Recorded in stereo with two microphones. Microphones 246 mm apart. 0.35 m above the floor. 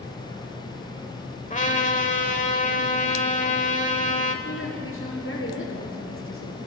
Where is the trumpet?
30° left (ahead or behind), 1.7 m.